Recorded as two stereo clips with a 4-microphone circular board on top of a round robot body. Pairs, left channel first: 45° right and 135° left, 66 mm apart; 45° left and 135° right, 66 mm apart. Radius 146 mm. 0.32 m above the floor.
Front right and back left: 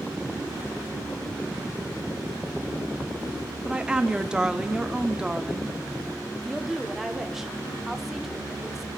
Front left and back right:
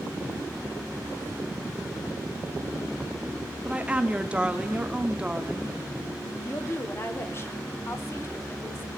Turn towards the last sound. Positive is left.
turn(degrees=55)